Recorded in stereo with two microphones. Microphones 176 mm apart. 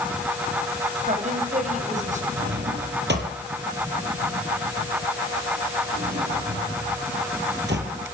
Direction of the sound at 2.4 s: 75° right (ahead or behind).